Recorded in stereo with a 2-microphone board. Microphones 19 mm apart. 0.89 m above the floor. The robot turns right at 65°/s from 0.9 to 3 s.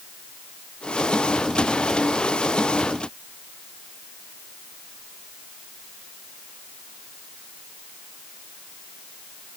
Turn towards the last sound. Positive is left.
No sound to turn to.